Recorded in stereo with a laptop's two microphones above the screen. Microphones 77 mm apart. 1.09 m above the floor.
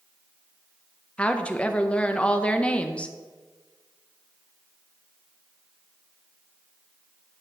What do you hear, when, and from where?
1.2 s a woman speaking: 15° left (ahead or behind), 0.7 m